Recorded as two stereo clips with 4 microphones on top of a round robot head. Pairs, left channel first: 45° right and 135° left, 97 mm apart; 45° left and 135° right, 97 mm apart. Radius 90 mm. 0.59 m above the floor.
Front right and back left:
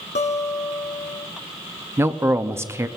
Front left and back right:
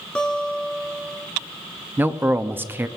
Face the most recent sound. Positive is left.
turn(degrees=175)